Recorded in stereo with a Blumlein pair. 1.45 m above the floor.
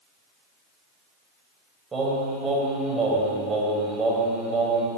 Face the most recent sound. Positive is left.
turn(degrees=-20)